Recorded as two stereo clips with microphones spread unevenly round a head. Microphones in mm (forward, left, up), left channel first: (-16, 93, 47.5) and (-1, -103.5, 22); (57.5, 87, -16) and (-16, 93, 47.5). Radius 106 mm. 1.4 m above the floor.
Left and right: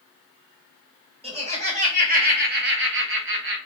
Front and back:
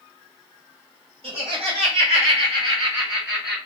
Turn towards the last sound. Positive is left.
turn(degrees=-65)